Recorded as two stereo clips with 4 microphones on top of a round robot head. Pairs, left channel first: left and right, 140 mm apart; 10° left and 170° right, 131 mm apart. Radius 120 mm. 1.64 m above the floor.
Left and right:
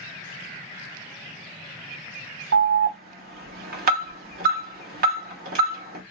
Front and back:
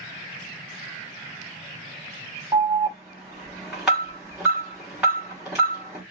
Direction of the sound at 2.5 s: 85° right.